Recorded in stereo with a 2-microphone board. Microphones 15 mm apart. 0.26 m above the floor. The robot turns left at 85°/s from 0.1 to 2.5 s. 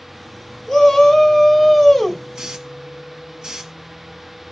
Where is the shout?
155° left, 1.8 m; by 2.2 s 20° left, 1.8 m.